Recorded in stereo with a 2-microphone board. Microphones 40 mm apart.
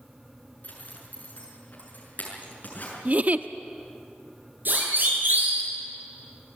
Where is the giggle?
40° right (ahead or behind), 0.8 m.